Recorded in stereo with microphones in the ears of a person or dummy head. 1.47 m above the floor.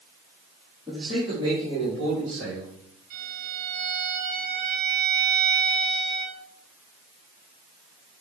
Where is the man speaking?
15° right (ahead or behind), 3.5 m; by 2.8 s 50° right (ahead or behind), 3.5 m.